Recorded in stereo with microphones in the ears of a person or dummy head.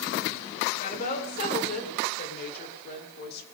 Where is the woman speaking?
45° left (ahead or behind), 4.5 m; by 3.4 s 55° left (ahead or behind), 3 m.